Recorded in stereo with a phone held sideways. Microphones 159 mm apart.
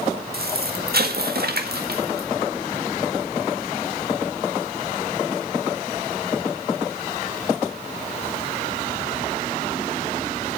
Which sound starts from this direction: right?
An explosion, at 0.3 s.